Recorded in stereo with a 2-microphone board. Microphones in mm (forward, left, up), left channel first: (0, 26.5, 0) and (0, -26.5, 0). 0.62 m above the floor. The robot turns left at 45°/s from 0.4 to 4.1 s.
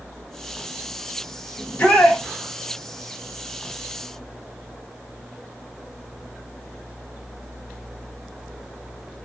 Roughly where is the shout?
Centre.